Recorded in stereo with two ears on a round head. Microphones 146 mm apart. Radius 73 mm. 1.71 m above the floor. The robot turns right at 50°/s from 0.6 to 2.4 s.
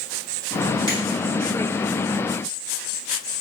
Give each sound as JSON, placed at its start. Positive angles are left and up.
{"t": 0.9, "sound": "a finger snap", "side_deg": -30, "distance_m": 1.6}